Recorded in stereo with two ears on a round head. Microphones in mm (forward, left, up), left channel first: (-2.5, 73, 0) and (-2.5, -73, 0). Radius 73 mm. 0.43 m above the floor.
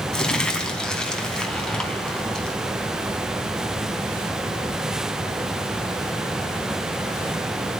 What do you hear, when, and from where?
0.1 s crumpling: 5° left (ahead or behind), 3 m